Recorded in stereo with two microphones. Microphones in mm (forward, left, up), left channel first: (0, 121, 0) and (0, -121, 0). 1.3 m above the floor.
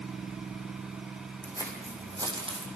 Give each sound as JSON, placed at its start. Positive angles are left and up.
{"t": 1.4, "sound": "footsteps", "side_deg": -10, "distance_m": 4.0}